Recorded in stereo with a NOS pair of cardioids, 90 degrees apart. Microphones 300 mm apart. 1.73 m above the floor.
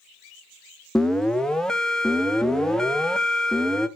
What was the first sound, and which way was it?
An alarm, straight ahead.